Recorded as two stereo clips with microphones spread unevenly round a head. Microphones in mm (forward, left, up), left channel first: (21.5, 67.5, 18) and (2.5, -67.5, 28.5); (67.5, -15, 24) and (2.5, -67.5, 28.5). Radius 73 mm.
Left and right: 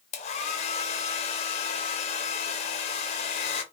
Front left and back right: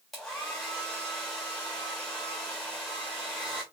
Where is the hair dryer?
130° left, 0.5 m.